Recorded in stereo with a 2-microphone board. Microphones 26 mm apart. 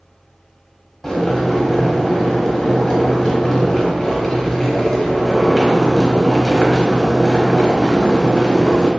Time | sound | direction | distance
1.0 | boiling | 10° left (ahead or behind) | 1.0 m